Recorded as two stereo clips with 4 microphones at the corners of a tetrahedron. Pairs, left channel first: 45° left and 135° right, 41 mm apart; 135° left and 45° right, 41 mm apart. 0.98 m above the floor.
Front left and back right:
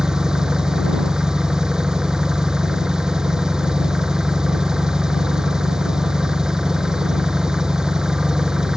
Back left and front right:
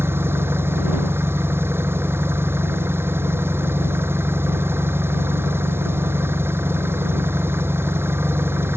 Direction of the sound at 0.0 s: 65° right.